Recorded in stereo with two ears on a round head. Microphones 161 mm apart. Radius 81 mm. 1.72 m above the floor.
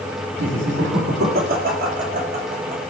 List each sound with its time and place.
0.4 s laughter: 70° right (ahead or behind), 4 m; by 2.8 s 35° right (ahead or behind), 4 m